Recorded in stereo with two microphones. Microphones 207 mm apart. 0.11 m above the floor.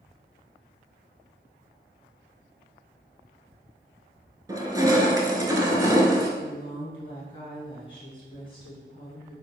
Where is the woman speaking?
25° left (ahead or behind), 1.6 m.